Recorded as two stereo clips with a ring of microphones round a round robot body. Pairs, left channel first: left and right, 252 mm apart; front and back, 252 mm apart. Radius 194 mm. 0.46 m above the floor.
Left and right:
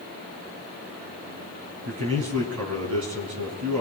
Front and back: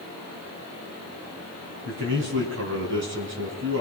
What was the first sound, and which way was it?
A man speaking, 130° right.